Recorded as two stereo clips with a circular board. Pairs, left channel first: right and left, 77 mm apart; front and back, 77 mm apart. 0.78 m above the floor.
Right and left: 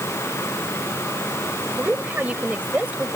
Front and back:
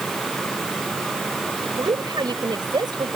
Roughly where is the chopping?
No chopping in this recording.